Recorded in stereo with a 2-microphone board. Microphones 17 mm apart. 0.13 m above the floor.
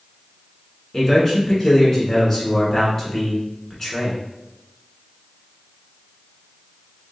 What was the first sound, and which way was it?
A man speaking, 20° left (ahead or behind).